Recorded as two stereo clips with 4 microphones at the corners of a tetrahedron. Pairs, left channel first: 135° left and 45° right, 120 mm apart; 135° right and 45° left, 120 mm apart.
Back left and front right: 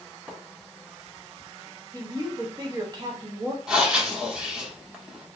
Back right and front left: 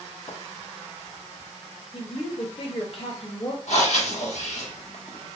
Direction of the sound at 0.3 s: 120° right.